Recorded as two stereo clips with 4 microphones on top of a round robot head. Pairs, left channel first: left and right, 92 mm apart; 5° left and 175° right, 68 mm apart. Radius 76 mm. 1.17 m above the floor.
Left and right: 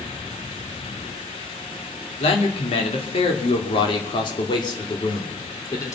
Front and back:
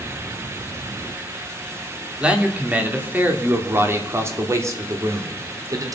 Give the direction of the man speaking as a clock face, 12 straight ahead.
8 o'clock.